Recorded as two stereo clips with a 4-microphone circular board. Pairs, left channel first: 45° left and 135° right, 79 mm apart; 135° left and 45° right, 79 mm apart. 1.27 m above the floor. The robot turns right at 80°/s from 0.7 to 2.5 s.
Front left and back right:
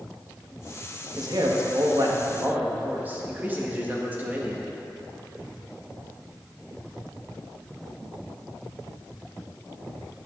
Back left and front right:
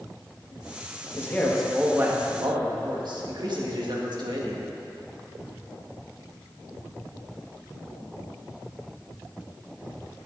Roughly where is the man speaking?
Behind.